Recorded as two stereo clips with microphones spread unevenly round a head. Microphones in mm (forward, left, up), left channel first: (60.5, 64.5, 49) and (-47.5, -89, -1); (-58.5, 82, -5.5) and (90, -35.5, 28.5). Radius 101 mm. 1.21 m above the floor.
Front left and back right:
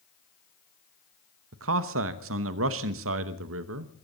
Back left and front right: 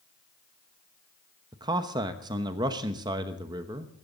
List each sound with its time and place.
1.5 s a man speaking: 110° right, 0.9 m